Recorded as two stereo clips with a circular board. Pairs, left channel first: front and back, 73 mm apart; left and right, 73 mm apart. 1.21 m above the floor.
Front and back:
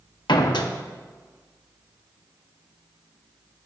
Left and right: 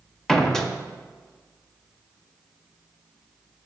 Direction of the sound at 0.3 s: 10° left.